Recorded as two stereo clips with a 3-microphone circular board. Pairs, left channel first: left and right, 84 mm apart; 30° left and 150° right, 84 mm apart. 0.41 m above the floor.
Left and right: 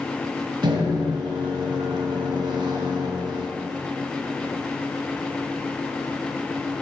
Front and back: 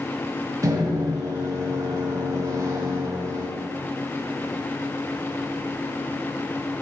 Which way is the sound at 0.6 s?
105° right.